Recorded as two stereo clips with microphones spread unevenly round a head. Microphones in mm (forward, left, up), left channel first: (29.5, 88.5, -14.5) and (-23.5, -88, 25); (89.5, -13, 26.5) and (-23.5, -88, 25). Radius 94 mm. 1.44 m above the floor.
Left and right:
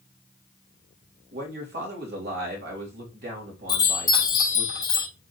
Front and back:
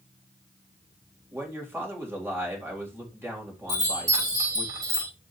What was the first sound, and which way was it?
A man speaking, 75° right.